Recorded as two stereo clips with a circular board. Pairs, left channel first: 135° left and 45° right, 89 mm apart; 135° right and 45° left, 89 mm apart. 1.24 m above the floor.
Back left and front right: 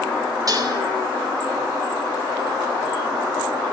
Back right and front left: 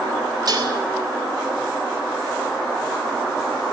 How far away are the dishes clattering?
About 4 m.